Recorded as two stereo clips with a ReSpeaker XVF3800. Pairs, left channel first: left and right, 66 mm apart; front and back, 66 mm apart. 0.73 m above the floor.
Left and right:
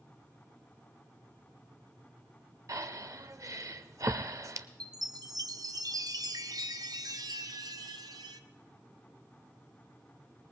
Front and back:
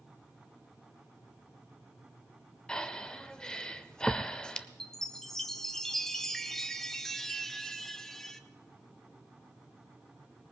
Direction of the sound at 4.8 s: 85° right.